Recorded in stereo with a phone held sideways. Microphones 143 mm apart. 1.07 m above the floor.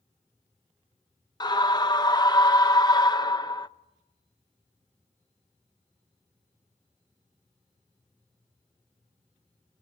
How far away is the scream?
About 0.7 m.